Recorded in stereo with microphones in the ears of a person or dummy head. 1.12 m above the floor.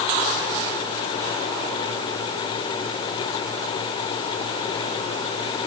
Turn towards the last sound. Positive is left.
No sound to turn to.